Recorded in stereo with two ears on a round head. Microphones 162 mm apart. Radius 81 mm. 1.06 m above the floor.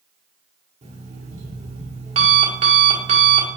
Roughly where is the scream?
I don't hear a scream.